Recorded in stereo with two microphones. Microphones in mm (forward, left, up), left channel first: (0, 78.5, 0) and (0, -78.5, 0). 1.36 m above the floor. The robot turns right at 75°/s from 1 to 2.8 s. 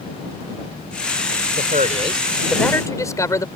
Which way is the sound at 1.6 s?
75° right.